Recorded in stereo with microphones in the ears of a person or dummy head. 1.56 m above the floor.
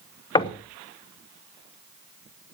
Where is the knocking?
20° left (ahead or behind), 1.0 m.